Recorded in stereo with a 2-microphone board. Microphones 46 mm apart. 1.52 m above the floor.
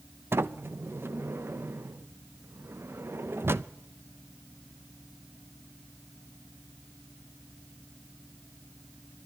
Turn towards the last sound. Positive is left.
turn(degrees=-55)  # may be behind; listen again after turning